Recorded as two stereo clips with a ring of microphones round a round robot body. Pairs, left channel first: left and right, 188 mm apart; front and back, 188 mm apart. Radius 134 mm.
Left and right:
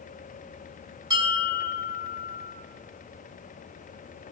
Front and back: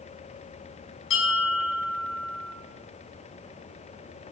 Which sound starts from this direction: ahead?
A bell, at 1.1 s.